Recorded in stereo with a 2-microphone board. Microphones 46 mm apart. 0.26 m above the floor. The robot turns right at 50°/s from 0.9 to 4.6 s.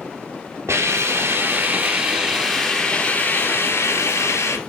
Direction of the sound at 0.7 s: 85° right.